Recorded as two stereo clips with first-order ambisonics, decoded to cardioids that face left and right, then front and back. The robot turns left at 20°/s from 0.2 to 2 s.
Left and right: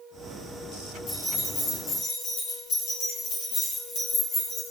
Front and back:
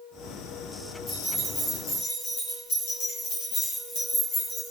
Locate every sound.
1.1 s keys jangling: 60° left, 1.9 m; by 4.7 s 40° left, 1.9 m